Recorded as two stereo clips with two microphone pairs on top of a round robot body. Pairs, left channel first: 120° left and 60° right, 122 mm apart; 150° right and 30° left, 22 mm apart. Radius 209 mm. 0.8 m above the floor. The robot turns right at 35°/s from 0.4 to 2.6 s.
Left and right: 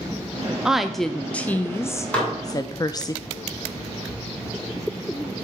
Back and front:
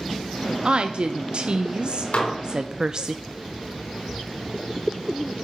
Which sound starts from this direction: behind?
Dishes clattering, at 2.1 s.